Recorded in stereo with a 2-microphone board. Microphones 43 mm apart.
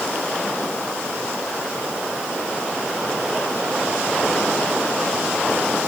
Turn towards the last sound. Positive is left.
No sound to turn to.